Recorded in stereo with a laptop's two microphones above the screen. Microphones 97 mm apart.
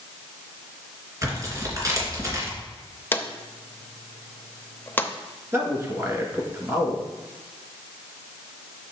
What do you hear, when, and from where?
1.2 s tearing paper: 35° right (ahead or behind), 3 m
3.1 s a drawer: 20° left (ahead or behind), 0.5 m
5.5 s a man speaking: 35° right (ahead or behind), 1.6 m